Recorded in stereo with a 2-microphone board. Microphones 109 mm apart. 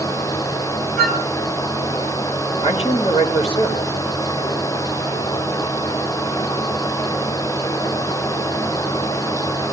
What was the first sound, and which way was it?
A flute, 15° left (ahead or behind).